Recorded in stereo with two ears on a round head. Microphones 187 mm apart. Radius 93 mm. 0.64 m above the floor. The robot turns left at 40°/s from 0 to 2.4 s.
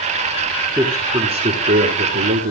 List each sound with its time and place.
0.8 s a man speaking: 15° right, 1.9 m; by 2.5 s 80° right, 1.9 m